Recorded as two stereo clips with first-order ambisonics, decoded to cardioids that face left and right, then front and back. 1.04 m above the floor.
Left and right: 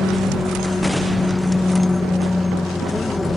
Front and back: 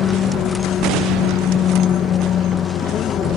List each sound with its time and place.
0.0 s an aircraft: 15° left